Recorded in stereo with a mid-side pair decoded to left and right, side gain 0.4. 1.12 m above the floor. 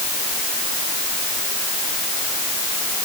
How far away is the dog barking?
No dog barking in this recording.